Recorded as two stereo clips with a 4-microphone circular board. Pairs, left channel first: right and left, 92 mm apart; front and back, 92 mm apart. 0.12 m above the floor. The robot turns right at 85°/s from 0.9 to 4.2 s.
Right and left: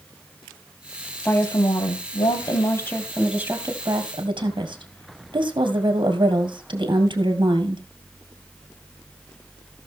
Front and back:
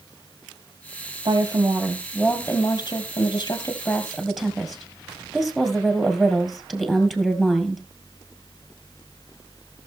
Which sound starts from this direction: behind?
A woman speaking, at 1.2 s.